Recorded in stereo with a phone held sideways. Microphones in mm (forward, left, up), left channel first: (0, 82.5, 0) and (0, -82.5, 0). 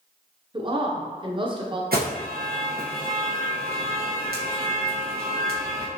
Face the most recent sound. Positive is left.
turn(degrees=-70)  # may be behind; listen again after turning